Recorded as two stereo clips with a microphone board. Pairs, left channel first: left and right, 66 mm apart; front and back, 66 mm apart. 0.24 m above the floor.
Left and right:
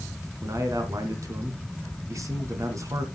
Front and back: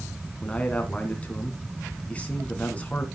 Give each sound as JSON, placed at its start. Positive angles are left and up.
{"t": 0.4, "sound": "a man speaking", "azimuth_deg": -65, "distance_m": 2.5}